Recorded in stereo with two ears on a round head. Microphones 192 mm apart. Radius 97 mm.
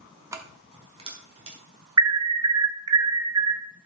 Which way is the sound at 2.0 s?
15° right (ahead or behind).